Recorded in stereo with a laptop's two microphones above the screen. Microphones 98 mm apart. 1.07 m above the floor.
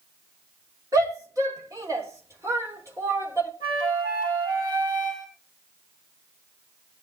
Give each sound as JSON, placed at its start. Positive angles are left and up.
{"t": 0.9, "sound": "a shout", "side_deg": -40, "distance_m": 3.0}
{"t": 3.6, "sound": "a flute", "side_deg": -45, "distance_m": 6.5}